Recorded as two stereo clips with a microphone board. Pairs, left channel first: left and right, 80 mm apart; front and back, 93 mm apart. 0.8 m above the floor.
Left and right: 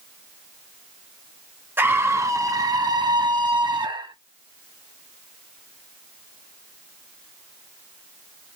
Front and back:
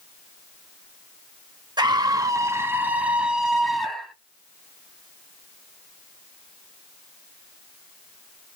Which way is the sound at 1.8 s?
150° right.